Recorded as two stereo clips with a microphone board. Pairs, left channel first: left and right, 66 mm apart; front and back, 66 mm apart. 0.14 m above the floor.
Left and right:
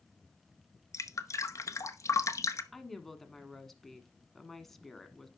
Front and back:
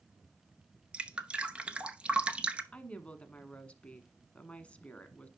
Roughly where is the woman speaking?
Ahead.